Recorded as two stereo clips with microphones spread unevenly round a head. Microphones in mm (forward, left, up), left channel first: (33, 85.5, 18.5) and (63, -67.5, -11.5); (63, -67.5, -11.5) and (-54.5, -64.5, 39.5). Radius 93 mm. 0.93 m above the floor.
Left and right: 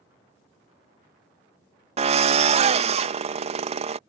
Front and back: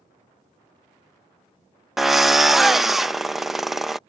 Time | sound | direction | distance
2.0 | a drill | 70° right | ?